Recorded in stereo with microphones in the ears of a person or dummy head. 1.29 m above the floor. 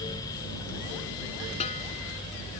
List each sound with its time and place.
1.6 s a snare drum: 40° left (ahead or behind)